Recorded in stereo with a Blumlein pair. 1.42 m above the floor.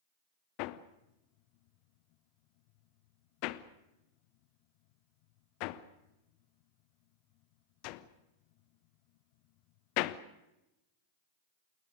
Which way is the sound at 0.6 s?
45° left.